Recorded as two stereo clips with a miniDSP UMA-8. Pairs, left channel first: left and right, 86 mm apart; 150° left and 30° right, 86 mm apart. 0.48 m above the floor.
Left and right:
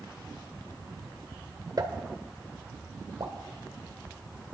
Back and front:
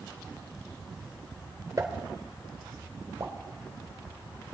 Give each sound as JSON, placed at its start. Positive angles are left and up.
{"t": 1.8, "sound": "a pop", "azimuth_deg": -65, "distance_m": 1.5}